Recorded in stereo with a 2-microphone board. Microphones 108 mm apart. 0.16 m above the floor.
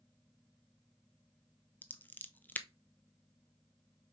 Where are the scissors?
15° left (ahead or behind), 0.7 m.